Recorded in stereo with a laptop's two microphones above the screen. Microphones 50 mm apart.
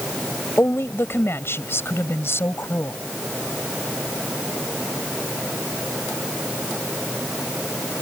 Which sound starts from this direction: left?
A woman speaking, at 0.6 s.